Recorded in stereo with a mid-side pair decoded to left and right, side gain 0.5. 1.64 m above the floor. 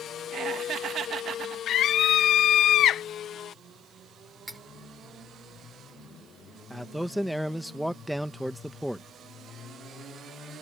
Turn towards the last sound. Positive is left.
turn(degrees=-5)